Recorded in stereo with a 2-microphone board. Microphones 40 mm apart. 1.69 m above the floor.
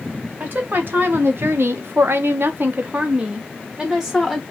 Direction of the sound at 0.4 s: 50° right (ahead or behind).